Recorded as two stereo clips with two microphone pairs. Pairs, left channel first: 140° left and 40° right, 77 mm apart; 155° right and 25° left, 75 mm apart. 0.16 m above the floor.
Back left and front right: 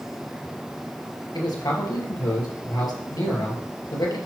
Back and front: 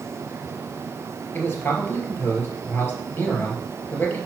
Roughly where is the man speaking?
Behind left.